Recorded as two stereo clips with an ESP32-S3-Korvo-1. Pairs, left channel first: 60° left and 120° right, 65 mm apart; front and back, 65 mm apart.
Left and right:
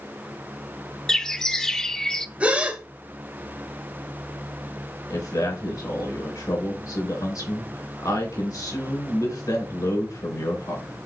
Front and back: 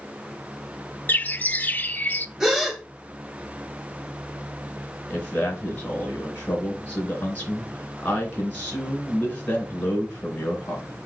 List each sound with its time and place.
1.1 s a bird: 5° right, 0.6 m
2.4 s a gasp: 105° right, 1.2 m
5.1 s a man speaking: 65° left, 3.5 m